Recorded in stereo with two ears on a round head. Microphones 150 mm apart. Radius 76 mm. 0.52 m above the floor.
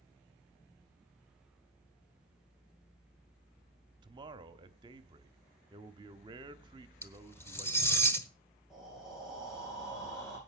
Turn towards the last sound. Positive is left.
turn(degrees=-5)  # may be behind; listen again after turning